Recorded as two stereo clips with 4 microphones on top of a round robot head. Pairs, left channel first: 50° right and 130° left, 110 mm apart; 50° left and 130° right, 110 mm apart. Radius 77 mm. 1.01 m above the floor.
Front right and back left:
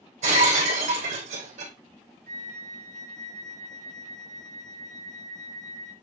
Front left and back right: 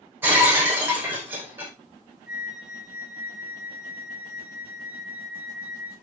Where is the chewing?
No chewing in this recording.